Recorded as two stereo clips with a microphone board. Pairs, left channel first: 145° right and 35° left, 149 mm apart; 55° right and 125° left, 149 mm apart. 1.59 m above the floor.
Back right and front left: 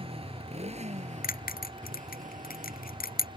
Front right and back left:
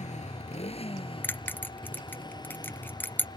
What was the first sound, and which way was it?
A motorcycle, 15° right.